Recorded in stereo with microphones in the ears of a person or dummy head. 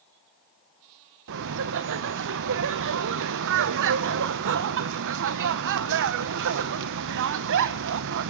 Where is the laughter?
65° right (ahead or behind), 0.8 m.